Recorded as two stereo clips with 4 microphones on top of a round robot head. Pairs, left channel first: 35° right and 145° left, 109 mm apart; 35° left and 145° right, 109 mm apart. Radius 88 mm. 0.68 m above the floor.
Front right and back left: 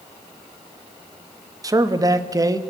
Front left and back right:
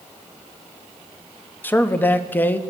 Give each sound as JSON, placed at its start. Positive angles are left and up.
{"t": 1.6, "sound": "a man speaking", "azimuth_deg": 100, "distance_m": 0.9}